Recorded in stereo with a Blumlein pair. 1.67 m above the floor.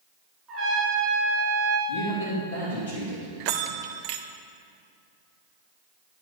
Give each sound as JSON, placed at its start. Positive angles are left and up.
{"t": 0.5, "sound": "a trumpet", "azimuth_deg": -25, "distance_m": 2.5}
{"t": 1.9, "sound": "a man speaking", "azimuth_deg": 50, "distance_m": 3.0}
{"t": 3.4, "sound": "a bell", "azimuth_deg": -45, "distance_m": 0.5}